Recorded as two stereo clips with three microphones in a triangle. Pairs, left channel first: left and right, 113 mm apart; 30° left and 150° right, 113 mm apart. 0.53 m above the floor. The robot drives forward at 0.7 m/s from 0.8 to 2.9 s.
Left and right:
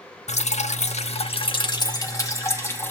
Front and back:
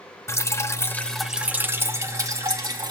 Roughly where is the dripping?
Left.